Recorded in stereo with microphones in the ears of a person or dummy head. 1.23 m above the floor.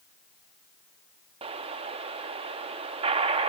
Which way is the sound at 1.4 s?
35° right (ahead or behind).